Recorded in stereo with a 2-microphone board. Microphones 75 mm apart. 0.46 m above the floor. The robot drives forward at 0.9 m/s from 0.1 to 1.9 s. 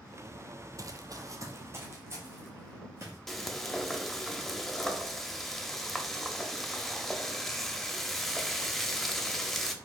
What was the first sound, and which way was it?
Running footsteps, 45° right (ahead or behind).